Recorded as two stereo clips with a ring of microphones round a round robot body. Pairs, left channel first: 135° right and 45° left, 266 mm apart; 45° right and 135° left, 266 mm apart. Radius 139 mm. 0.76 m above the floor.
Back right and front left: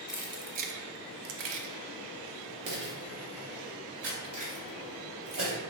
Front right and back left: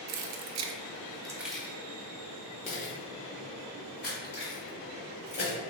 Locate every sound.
0.1 s keys jangling: 130° left, 0.6 m; by 5.6 s 5° left, 3 m